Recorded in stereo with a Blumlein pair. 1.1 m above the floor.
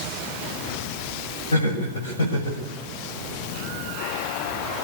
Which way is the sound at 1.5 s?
65° left.